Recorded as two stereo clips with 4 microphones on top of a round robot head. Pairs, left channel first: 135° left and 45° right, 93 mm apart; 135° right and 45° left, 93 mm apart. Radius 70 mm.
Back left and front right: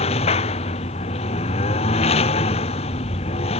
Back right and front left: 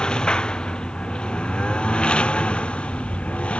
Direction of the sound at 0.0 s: 145° left.